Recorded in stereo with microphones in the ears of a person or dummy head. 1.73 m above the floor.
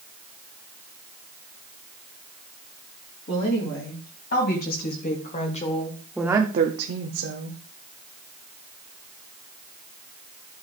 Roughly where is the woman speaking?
Left.